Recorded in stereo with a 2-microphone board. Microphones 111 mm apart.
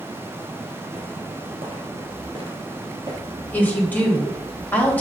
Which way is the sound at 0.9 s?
60° right (ahead or behind).